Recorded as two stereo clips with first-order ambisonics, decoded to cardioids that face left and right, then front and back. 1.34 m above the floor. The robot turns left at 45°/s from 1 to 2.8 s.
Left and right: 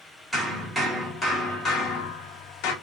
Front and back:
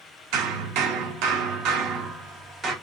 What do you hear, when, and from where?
0.3 s hammering: straight behind, 1.6 m; by 2.7 s 105° left, 1.6 m